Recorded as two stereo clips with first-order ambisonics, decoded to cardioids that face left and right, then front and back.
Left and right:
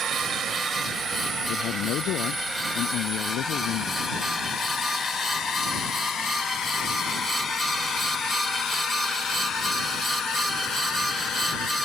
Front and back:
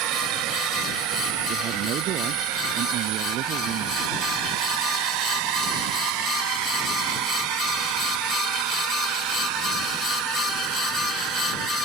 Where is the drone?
150° right; by 11.8 s 150° left.